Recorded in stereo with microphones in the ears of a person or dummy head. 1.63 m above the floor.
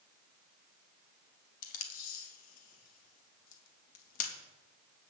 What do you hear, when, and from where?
1.6 s tape being pulled: 55° left (ahead or behind), 2.5 m